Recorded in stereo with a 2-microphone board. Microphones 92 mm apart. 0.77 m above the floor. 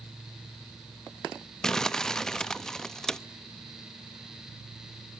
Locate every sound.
1.6 s crumpling: 5° left (ahead or behind), 0.5 m